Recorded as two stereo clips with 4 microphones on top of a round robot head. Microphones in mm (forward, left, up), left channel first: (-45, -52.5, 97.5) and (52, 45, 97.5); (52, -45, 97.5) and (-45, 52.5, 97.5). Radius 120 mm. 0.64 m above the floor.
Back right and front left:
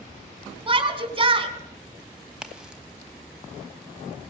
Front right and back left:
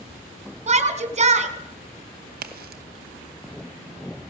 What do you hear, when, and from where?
0.7 s a shout: 95° left, 3 m
2.3 s a crack: 130° left, 1.1 m